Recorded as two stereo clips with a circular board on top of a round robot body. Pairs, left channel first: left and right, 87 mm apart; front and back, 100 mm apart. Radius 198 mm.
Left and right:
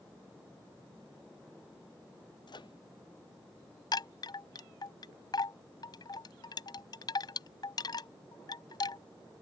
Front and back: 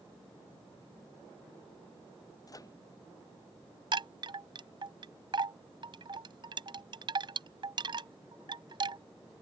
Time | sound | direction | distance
2.5 | a microwave | 55° left | ?
3.9 | a chime | 135° left | ?